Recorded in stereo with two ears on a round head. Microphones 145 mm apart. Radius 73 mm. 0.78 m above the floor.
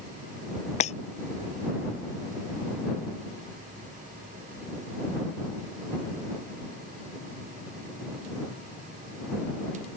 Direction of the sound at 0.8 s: 45° left (ahead or behind).